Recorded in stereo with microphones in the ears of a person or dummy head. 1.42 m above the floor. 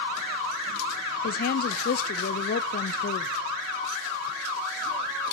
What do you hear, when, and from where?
1.2 s a woman speaking: 50° left (ahead or behind), 0.6 m